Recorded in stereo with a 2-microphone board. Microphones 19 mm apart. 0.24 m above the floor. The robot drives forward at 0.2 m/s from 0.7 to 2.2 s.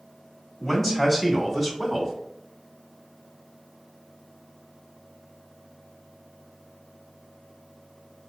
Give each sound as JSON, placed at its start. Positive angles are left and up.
{"t": 0.6, "sound": "a man speaking", "side_deg": 15, "distance_m": 1.2}